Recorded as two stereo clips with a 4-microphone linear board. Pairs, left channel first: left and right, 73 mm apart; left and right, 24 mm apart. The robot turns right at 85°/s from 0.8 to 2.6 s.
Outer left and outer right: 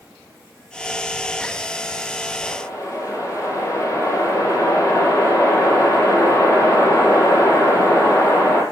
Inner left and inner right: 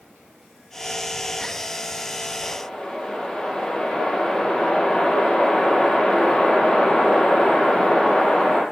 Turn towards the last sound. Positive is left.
turn(degrees=45)  # may be behind; listen again after turning